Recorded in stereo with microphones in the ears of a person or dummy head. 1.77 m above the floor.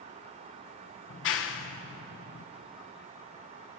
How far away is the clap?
About 1.3 m.